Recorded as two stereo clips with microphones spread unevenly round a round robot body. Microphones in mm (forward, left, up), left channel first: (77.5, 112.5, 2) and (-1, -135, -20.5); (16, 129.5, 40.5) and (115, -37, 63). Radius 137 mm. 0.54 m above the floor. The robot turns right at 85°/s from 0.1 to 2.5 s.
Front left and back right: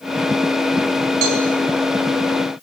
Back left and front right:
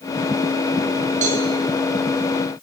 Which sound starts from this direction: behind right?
A cowbell, at 1.2 s.